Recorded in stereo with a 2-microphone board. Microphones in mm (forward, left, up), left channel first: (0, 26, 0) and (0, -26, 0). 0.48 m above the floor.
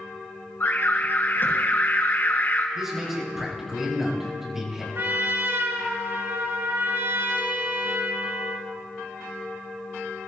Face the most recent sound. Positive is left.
turn(degrees=-65)  # may be behind; listen again after turning